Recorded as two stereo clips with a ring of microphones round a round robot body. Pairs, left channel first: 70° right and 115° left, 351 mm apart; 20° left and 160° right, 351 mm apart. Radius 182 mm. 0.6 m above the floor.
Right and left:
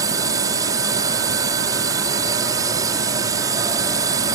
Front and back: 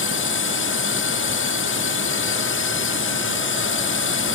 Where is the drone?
40° left.